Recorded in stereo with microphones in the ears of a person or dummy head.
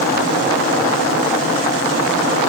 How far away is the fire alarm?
I don't hear a fire alarm.